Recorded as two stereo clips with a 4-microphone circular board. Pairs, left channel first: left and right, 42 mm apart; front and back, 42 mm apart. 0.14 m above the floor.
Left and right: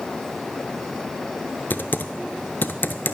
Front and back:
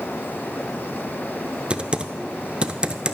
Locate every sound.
1.7 s typing on a keyboard: 120° left, 0.7 m